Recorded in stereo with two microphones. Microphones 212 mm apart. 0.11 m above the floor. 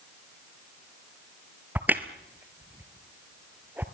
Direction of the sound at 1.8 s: 10° right (ahead or behind).